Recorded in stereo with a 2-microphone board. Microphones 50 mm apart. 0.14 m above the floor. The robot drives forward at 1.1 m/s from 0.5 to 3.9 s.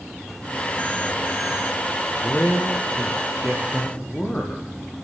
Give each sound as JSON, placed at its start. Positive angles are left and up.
{"t": 2.2, "sound": "a man speaking", "side_deg": 35, "distance_m": 4.0}